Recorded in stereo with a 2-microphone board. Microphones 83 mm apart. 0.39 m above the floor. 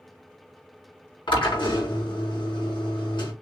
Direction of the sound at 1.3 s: 80° left.